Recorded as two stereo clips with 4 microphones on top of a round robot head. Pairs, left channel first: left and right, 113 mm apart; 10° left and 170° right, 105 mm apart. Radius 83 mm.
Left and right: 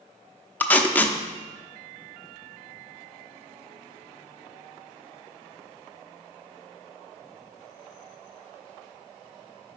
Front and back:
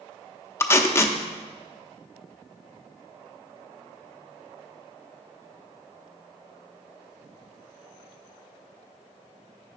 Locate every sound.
0.6 s tape being pulled: 30° left, 0.8 m